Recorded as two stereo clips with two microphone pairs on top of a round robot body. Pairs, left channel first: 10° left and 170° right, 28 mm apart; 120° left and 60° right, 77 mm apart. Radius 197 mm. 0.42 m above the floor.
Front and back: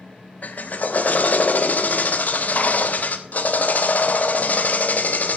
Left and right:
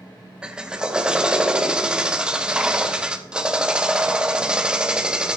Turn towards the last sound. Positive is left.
turn(degrees=25)